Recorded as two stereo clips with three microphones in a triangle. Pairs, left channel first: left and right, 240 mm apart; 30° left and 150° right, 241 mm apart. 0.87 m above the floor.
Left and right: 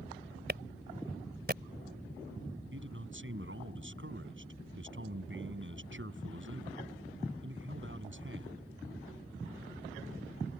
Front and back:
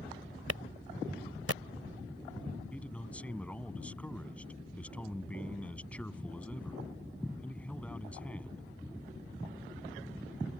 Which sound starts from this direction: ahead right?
A man speaking, at 2.7 s.